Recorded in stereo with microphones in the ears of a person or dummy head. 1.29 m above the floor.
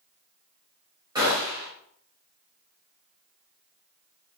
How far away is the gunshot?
About 3 m.